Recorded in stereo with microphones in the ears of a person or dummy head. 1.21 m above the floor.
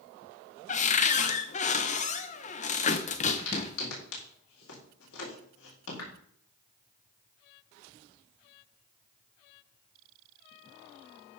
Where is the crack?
80° left, 4 m.